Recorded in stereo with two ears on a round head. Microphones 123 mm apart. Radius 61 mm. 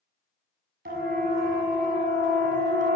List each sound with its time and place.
0.8 s a siren: 75° right (ahead or behind), 6 m; by 3.0 s 60° right (ahead or behind), 6 m